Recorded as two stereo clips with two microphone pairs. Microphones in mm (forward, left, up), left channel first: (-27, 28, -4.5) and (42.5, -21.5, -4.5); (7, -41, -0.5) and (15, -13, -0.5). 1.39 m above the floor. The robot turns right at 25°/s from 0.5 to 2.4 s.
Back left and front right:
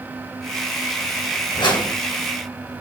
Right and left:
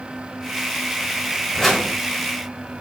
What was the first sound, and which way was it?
A whoosh, 165° left.